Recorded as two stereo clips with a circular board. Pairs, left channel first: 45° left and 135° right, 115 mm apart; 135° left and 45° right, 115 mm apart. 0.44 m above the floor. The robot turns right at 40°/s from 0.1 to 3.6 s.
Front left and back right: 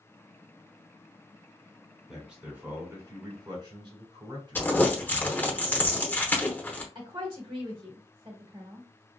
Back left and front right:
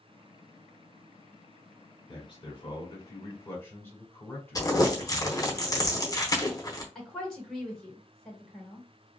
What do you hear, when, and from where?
2.1 s a man speaking: 135° left, 1.4 m; by 5.5 s 165° right, 1.4 m
4.5 s crumpling: 105° left, 0.8 m
7.0 s a woman speaking: 140° right, 1.2 m